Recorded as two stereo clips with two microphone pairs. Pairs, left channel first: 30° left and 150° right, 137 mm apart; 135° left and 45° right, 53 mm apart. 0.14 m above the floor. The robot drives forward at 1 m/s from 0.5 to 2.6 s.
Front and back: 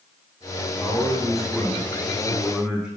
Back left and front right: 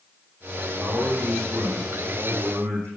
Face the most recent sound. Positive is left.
turn(degrees=-70)